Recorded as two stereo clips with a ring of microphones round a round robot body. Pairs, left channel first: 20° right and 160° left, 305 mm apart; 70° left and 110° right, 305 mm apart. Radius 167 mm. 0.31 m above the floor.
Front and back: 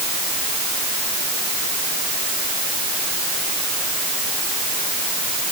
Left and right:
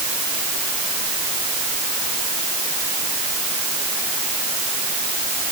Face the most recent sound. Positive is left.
No sound to turn to.